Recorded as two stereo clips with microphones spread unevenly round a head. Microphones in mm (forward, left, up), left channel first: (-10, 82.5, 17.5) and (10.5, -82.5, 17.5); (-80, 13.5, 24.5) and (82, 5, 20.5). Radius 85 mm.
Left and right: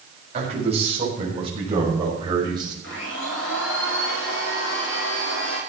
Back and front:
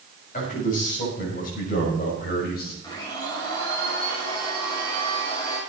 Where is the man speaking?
135° right, 6.5 m; by 2.7 s 150° right, 5.5 m.